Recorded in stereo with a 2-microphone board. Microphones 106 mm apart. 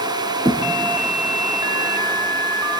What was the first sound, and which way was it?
A thud, 50° right (ahead or behind).